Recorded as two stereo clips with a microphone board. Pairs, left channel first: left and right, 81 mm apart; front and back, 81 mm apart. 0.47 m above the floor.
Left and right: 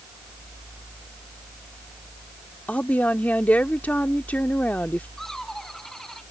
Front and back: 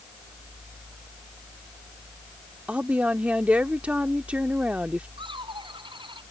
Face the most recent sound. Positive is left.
turn(degrees=175)